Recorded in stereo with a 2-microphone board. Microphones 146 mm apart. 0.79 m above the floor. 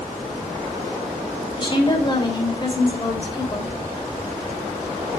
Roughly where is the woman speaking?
Left.